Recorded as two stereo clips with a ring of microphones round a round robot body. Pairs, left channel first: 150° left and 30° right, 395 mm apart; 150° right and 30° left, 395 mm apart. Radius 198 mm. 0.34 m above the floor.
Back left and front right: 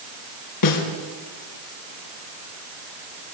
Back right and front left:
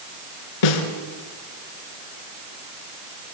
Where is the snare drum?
170° right, 4 m.